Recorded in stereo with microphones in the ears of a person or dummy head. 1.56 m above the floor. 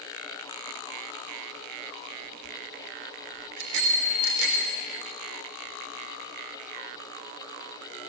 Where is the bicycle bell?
80° right, 4 m; by 4.8 s 75° right (ahead or behind), 4 m.